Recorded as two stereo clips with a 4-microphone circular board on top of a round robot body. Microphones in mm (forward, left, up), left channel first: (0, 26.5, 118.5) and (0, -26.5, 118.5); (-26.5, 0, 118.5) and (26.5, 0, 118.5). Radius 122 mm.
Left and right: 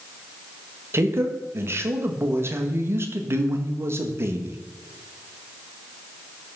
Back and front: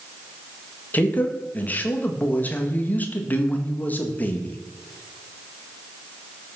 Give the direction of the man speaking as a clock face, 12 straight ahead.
4 o'clock.